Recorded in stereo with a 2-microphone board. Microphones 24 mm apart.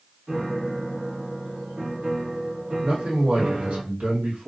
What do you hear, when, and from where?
0.3 s a piano: 55° right (ahead or behind), 1.0 m
2.8 s a man speaking: 60° right (ahead or behind), 1.7 m